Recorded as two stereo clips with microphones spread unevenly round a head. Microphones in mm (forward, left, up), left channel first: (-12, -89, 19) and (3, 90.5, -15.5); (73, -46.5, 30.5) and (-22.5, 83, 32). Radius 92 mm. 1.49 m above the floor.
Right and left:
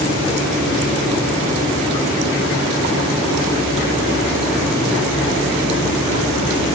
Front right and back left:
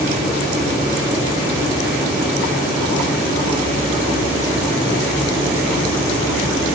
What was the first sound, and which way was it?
Only background noise.